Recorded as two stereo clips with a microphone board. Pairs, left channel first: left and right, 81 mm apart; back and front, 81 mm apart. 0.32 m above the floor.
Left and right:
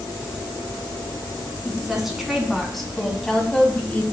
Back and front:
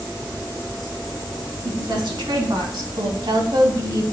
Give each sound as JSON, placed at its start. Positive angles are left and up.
{"t": 1.6, "sound": "a woman speaking", "azimuth_deg": -5, "distance_m": 2.5}